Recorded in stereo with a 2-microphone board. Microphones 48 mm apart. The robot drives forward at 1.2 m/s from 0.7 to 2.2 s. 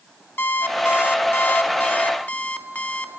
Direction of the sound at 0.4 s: 50° left (ahead or behind).